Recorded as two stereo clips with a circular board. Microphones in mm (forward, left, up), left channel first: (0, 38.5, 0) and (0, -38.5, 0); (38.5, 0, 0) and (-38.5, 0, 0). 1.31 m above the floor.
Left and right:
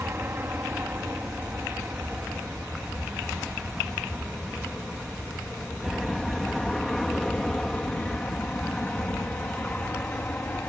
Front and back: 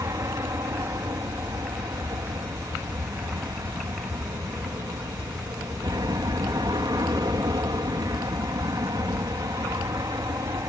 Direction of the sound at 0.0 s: 145° right.